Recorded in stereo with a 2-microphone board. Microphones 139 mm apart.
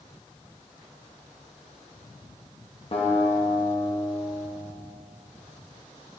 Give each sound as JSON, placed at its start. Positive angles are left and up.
{"t": 2.9, "sound": "a guitar", "side_deg": 40, "distance_m": 1.2}